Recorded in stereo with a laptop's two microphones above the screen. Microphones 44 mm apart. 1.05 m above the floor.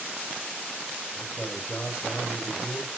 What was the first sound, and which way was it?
A man speaking, 35° left (ahead or behind).